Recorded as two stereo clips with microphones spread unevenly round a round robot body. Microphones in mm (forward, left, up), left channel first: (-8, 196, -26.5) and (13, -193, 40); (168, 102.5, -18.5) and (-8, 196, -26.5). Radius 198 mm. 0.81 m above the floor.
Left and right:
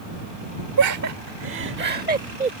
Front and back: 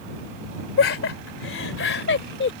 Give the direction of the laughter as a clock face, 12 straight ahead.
1 o'clock.